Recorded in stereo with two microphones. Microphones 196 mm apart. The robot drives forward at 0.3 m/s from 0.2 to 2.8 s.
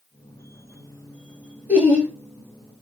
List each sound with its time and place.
1.7 s laughter: 10° right (ahead or behind), 1.8 m